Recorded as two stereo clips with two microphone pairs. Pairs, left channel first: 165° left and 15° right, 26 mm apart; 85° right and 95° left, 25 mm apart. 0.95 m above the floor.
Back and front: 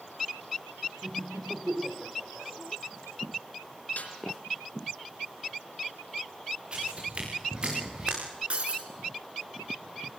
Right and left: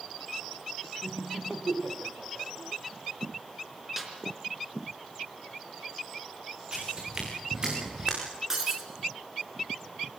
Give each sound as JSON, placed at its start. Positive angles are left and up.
{"t": 1.0, "sound": "laughter", "azimuth_deg": 20, "distance_m": 4.0}
{"t": 4.0, "sound": "a snare drum", "azimuth_deg": 170, "distance_m": 4.0}
{"t": 6.7, "sound": "footsteps", "azimuth_deg": 35, "distance_m": 8.5}
{"t": 8.5, "sound": "breaking glass", "azimuth_deg": 25, "distance_m": 4.0}